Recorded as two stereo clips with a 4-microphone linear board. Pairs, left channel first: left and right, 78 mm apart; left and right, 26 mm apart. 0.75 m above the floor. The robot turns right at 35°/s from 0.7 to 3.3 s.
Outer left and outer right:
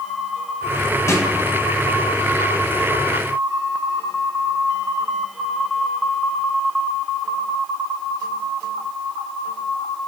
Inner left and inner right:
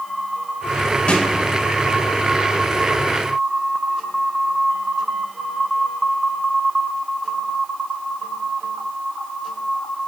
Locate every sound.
1.1 s a snare drum: 40° left (ahead or behind), 1.2 m; by 1.2 s 35° left (ahead or behind), 1.2 m